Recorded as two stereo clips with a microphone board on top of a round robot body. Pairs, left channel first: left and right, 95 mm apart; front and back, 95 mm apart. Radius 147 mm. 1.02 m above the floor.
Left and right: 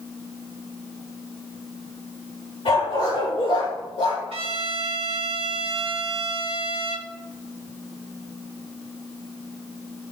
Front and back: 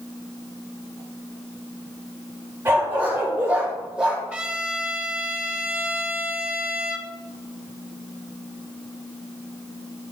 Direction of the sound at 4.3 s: 105° right.